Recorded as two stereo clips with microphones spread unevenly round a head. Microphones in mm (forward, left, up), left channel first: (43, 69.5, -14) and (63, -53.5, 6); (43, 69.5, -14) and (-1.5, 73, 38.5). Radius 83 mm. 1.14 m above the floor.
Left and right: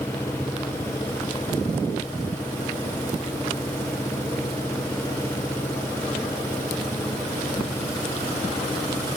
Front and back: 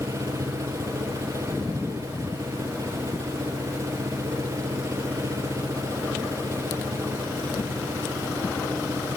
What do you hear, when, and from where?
0.0 s an engine running: 175° left